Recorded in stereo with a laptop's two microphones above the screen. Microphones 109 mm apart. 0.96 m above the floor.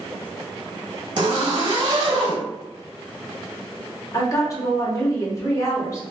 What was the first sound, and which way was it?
A zipper, 40° right (ahead or behind).